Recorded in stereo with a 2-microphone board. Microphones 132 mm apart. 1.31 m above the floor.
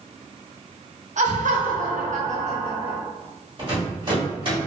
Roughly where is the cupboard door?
I don't hear a cupboard door.